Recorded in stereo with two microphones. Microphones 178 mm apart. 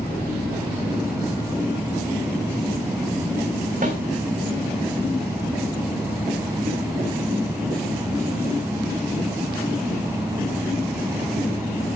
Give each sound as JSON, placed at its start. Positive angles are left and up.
{"t": 3.8, "sound": "a snare drum", "side_deg": -45, "distance_m": 4.0}